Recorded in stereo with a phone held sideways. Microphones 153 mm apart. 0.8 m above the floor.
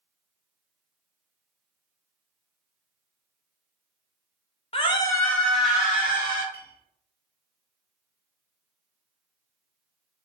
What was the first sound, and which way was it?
A scream, 35° left (ahead or behind).